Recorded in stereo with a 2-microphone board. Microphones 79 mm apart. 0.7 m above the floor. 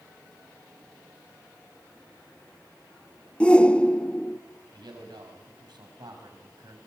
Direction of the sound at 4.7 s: 75° right (ahead or behind).